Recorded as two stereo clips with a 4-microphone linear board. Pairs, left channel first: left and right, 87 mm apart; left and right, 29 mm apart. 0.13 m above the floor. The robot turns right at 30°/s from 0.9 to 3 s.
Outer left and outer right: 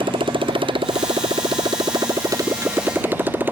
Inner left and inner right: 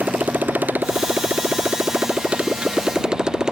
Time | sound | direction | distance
0.0 | a motorcycle | 85° right | ?